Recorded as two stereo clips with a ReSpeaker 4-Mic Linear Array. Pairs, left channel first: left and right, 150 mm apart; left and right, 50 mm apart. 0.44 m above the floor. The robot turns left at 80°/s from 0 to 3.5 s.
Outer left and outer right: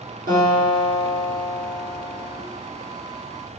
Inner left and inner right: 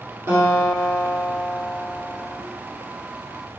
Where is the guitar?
75° right, 3 m; by 2.4 s 115° left, 3 m.